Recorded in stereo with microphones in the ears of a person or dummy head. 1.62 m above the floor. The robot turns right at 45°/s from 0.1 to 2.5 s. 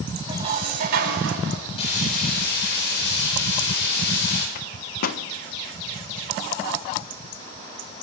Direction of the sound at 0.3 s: 150° right.